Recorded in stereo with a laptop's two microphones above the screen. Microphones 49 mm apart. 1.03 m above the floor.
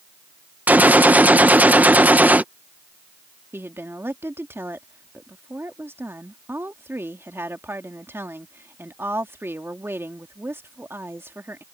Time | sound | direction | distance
0.7 | a gunshot | 35° right (ahead or behind) | ?
3.5 | a woman speaking | 50° right (ahead or behind) | ?